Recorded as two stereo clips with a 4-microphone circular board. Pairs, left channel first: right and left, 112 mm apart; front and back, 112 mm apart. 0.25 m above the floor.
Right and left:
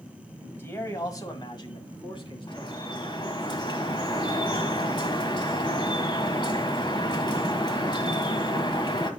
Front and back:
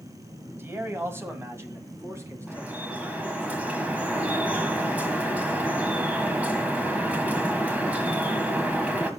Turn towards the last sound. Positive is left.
turn(degrees=-110)